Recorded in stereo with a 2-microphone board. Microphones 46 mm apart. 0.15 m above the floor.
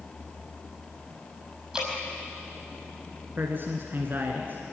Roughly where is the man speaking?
Right.